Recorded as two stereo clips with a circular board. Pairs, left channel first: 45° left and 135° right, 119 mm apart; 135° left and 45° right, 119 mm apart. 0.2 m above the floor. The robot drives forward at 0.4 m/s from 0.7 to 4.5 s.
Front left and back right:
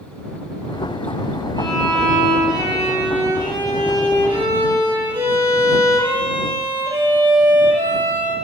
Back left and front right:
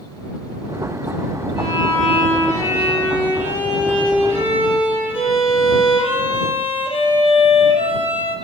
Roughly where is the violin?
Behind.